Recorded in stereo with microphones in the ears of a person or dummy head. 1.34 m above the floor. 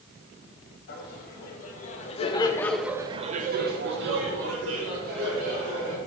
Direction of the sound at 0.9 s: 60° left (ahead or behind).